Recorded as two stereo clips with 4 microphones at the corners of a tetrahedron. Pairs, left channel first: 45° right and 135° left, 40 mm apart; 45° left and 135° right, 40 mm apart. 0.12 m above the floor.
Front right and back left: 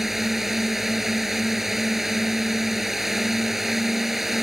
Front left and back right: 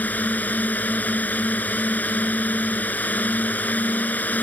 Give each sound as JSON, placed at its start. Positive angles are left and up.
{"t": 0.0, "sound": "a drone", "azimuth_deg": 55}